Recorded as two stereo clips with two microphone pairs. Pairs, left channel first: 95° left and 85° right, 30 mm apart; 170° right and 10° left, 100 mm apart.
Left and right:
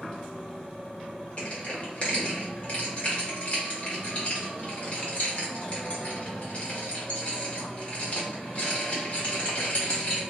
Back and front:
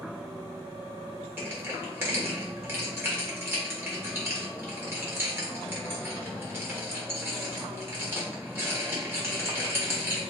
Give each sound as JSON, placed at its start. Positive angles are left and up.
{"t": 1.4, "sound": "crushing", "azimuth_deg": 70, "distance_m": 1.4}